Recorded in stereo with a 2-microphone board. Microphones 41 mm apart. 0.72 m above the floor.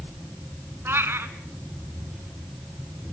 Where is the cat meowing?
70° right (ahead or behind), 1.5 m.